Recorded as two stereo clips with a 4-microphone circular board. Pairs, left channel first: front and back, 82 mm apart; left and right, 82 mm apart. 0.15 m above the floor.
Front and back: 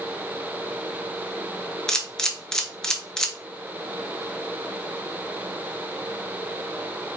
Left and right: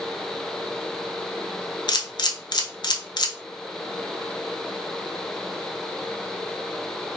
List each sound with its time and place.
1.9 s a camera shutter: 80° left, 0.6 m